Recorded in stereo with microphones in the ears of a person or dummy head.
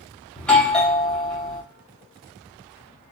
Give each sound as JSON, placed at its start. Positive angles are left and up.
{"t": 0.4, "sound": "a doorbell", "side_deg": 0, "distance_m": 0.7}